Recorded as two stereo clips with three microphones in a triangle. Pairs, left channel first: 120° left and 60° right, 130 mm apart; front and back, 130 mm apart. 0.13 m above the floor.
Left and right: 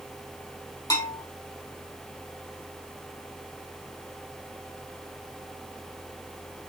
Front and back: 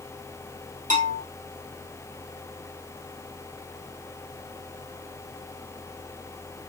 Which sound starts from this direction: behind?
A bell, at 0.9 s.